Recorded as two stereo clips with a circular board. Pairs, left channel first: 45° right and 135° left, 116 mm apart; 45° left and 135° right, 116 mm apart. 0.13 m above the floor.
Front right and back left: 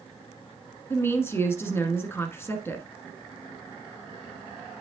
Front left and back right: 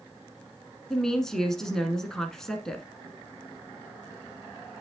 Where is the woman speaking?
35° right, 1.0 m.